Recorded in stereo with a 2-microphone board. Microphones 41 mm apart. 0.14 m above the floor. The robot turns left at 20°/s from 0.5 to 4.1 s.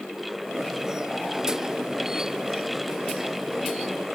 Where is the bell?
I don't hear a bell.